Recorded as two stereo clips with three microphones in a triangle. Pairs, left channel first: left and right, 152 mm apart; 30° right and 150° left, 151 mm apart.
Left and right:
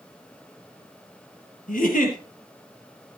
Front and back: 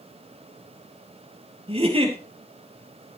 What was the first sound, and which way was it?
A giggle, 105° left.